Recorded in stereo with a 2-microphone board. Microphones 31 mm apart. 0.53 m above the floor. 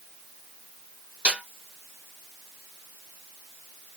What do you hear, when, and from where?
1.2 s a snare drum: 60° right (ahead or behind), 1.3 m